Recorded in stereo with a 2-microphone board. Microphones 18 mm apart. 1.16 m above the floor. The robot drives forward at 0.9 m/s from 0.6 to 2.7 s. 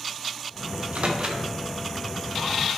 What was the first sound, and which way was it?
A microwave, 75° right (ahead or behind).